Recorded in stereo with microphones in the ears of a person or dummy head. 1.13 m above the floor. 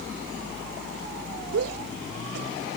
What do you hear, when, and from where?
1.5 s a shout: 80° right; by 2.5 s 70° right (ahead or behind)